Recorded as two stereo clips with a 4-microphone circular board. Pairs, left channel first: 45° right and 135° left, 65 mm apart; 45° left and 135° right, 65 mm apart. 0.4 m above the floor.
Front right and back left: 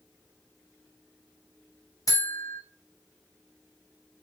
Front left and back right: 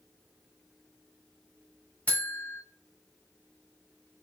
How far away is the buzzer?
About 0.9 m.